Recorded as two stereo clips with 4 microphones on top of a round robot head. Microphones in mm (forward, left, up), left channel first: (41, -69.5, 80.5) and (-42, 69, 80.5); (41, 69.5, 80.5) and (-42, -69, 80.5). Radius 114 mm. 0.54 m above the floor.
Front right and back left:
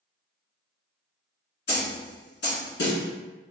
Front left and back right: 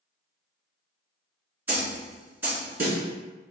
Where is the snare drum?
40° right, 2.0 m.